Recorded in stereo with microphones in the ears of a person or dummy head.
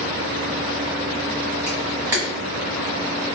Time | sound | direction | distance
1.7 | a camera shutter | 15° right (ahead or behind) | 1.2 m